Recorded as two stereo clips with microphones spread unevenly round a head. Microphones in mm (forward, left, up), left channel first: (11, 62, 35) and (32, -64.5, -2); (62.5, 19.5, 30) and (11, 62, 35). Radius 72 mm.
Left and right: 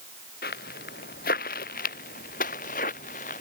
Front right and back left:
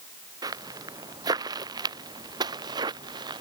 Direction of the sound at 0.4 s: 120° left.